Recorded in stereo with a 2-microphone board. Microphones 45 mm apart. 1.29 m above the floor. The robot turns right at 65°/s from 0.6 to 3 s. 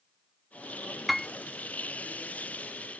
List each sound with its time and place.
1.1 s a piano: centre (ahead or behind); by 1.3 s 15° left (ahead or behind)